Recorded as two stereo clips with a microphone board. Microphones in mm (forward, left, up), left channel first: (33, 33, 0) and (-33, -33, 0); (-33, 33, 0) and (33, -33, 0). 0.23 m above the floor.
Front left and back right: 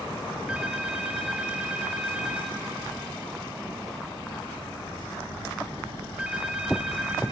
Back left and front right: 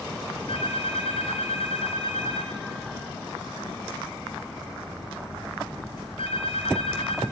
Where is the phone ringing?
145° left, 2.5 m.